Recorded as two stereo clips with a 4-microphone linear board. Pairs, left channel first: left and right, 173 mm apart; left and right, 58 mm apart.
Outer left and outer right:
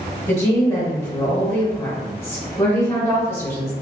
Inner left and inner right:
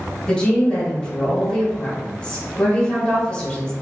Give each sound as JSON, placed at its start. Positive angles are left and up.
{"t": 0.3, "sound": "a woman speaking", "side_deg": 15, "distance_m": 1.2}